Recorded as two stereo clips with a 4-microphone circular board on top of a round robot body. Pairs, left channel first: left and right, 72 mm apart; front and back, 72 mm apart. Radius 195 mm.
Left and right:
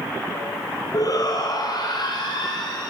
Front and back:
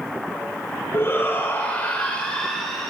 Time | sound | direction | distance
0.9 | a shout | 55° left | 2.5 m